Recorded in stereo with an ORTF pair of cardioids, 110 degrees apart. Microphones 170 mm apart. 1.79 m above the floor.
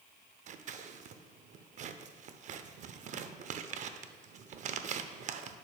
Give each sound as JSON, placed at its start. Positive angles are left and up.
{"t": 0.5, "sound": "scissors", "azimuth_deg": -45, "distance_m": 0.5}